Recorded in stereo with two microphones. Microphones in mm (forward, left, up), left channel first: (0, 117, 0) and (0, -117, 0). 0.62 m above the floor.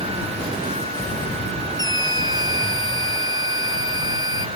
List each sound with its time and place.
1.8 s a scream: 15° right (ahead or behind)